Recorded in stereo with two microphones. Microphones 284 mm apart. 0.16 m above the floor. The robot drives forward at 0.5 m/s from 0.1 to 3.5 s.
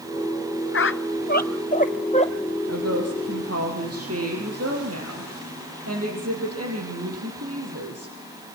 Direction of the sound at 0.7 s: 50° left (ahead or behind).